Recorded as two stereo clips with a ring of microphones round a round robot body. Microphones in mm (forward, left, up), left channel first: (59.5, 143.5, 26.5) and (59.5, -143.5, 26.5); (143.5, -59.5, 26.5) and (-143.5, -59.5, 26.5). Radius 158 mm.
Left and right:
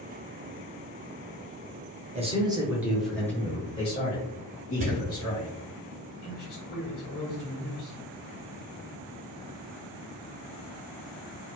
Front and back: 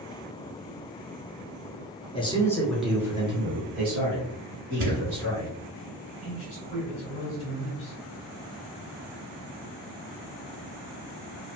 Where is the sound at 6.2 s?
55° left, 1.9 m.